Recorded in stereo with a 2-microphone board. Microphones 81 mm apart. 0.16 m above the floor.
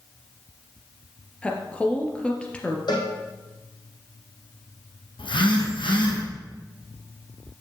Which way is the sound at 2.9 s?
65° left (ahead or behind).